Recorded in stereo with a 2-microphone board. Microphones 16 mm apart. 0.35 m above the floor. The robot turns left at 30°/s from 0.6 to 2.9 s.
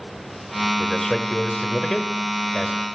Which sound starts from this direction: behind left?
A man speaking, at 0.8 s.